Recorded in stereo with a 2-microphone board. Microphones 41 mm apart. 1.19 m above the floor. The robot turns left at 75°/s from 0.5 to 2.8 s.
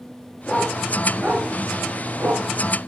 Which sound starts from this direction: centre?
A dog barking, at 0.5 s.